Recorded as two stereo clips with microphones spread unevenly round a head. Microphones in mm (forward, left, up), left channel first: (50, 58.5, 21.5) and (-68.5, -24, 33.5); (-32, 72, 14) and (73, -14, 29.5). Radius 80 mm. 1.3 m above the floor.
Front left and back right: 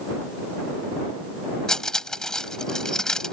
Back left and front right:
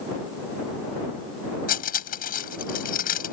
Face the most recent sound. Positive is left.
turn(degrees=120)